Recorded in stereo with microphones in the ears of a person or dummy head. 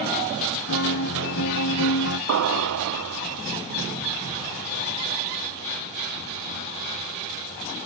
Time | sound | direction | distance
0.7 | a guitar | 65° left (ahead or behind) | 1.3 m
2.3 | an explosion | 70° right (ahead or behind) | 0.5 m